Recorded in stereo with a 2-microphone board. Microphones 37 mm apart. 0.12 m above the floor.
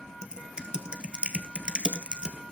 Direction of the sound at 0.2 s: 30° right (ahead or behind).